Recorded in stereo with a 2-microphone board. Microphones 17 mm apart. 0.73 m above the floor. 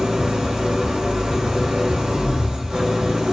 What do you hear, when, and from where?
0.0 s an engine running: 65° right (ahead or behind), 1.1 m